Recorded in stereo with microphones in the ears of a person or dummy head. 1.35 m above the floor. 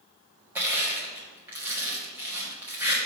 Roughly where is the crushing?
Centre.